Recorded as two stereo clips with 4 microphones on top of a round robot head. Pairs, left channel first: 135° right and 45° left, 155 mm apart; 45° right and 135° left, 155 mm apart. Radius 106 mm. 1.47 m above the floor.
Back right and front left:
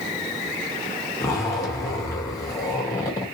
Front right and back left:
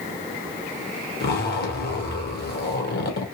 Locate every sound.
1.2 s a zipper: 65° right, 1.2 m